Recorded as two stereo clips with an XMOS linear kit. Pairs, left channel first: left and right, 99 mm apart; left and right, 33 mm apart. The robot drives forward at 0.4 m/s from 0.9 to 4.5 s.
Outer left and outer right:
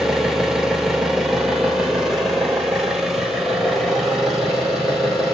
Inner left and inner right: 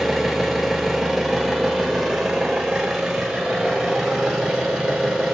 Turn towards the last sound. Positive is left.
turn(degrees=0)  # may be behind; listen again after turning